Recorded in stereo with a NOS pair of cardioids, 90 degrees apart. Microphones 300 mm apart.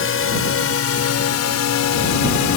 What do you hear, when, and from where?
0.0 s a drone: 45° left; by 2.6 s 75° left